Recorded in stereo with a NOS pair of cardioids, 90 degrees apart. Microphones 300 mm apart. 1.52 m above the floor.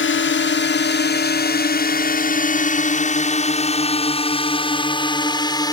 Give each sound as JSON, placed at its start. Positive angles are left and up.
{"t": 0.0, "sound": "a drone", "azimuth_deg": 40}